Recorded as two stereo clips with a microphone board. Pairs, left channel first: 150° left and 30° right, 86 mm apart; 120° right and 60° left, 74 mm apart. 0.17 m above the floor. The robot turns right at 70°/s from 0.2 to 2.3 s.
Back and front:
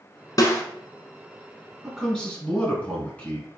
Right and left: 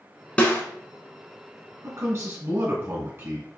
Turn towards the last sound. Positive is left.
turn(degrees=95)